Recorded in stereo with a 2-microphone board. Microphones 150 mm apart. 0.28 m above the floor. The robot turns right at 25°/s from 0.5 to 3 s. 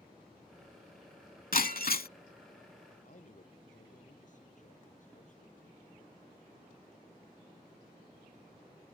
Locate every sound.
1.5 s breaking glass: 70° left (ahead or behind); by 2.1 s 85° left
3.0 s a man speaking: 55° left (ahead or behind)